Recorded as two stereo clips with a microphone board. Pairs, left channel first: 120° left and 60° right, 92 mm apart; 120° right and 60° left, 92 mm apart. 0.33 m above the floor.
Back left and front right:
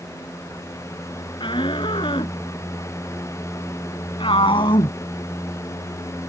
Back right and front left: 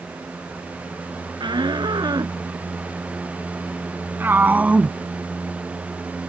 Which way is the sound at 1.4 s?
95° left.